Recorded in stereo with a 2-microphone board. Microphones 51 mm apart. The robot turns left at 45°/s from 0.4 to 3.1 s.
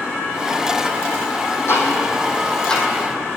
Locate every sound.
1.7 s ticking: 55° left (ahead or behind), 2.0 m; by 2.8 s 10° left (ahead or behind), 2.0 m